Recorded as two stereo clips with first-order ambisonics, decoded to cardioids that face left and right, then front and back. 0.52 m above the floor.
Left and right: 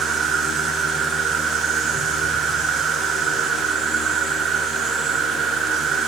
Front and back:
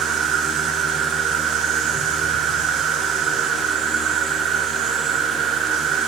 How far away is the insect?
About 1.0 m.